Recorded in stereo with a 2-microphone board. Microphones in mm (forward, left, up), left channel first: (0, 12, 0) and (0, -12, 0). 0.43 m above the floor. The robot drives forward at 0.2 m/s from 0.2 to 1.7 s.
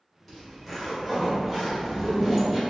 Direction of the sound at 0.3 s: 10° left (ahead or behind).